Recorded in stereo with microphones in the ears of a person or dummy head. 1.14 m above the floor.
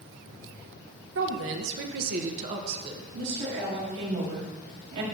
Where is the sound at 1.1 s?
65° right (ahead or behind), 1.0 m; by 3.0 s 25° right (ahead or behind), 1.0 m.